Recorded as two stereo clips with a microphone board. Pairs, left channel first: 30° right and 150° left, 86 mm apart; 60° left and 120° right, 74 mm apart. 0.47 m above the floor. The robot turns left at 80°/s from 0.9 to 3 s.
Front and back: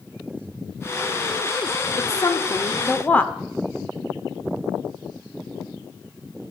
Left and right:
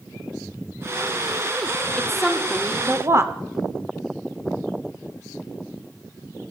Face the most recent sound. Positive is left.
turn(degrees=-90)